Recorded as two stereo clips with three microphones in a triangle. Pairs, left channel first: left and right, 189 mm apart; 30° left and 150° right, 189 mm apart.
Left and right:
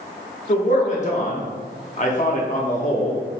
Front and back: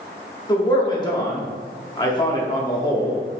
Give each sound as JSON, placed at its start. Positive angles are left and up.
{"t": 0.5, "sound": "a man speaking", "azimuth_deg": 85, "distance_m": 0.8}